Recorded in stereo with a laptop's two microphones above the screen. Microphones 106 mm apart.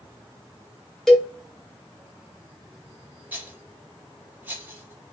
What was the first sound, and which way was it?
A cowbell, 5° left (ahead or behind).